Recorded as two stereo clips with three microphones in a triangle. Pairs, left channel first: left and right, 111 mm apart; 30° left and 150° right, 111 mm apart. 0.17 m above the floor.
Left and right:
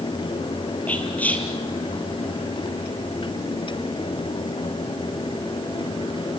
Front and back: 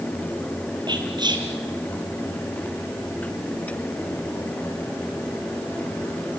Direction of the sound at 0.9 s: 165° left.